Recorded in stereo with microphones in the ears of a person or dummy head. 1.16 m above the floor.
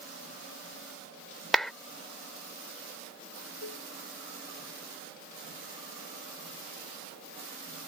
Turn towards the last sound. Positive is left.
turn(degrees=80)